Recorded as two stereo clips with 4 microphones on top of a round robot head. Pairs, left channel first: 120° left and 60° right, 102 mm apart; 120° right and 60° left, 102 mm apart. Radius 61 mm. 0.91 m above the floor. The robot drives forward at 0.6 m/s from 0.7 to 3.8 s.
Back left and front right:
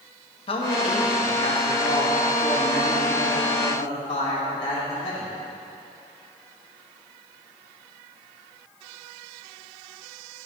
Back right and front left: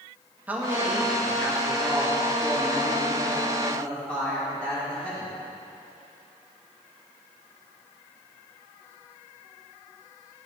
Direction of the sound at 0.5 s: 135° left.